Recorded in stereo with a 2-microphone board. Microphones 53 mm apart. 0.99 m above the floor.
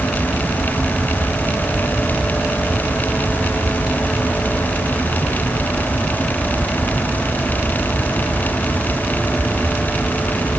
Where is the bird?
No bird in this recording.